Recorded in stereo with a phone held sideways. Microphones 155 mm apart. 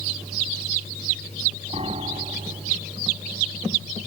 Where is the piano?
40° right (ahead or behind).